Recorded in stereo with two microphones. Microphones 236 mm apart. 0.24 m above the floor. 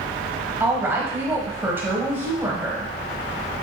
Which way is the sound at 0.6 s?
10° right (ahead or behind).